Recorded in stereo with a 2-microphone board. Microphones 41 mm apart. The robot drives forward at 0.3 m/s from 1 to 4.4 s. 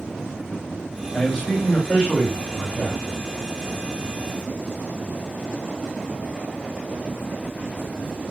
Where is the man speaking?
20° left (ahead or behind), 1.5 m.